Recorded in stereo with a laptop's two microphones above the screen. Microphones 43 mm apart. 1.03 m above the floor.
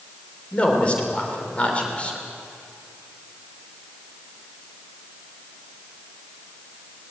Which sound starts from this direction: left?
A man speaking, at 0.5 s.